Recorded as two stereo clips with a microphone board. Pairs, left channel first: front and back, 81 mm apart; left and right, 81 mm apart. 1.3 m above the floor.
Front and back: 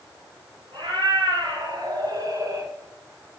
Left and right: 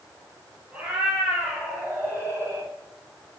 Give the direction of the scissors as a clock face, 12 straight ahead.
No scissors in this recording.